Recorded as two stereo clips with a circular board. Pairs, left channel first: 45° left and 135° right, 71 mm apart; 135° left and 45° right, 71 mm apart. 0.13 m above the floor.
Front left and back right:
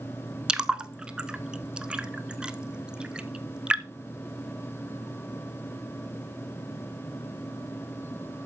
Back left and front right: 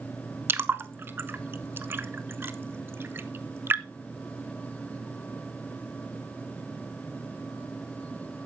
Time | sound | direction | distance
0.5 | a splash | 70° right | 0.7 m